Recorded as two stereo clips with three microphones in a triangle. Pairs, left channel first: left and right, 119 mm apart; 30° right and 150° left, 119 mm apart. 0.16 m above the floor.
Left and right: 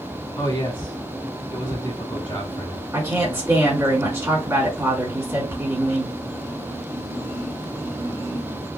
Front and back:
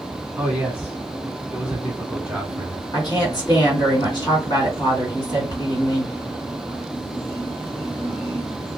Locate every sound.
0.4 s a man speaking: 75° left, 1.3 m
2.9 s a woman speaking: 40° right, 2.0 m